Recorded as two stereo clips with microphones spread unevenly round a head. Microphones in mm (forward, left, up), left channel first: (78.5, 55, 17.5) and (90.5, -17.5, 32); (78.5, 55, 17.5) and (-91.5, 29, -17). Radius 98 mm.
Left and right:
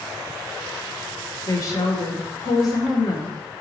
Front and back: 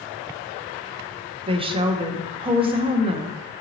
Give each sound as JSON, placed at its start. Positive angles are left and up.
{"t": 1.5, "sound": "a woman speaking", "azimuth_deg": 135, "distance_m": 0.7}